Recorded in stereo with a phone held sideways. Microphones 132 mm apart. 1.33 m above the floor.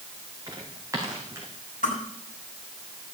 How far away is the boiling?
I don't hear boiling.